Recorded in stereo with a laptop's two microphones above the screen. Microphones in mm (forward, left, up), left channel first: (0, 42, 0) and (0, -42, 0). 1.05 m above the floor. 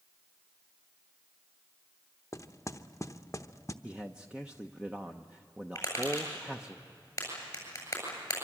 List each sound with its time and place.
2.3 s knocking: 35° left (ahead or behind), 0.9 m
3.8 s a man speaking: 10° right (ahead or behind), 0.9 m
5.8 s tapping: 30° left (ahead or behind), 7.5 m